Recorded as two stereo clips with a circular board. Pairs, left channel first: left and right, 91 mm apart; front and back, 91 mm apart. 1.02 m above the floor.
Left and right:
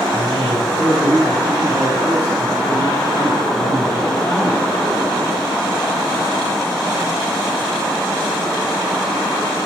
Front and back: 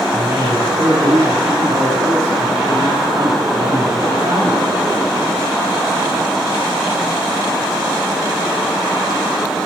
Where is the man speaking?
150° left, 5 m.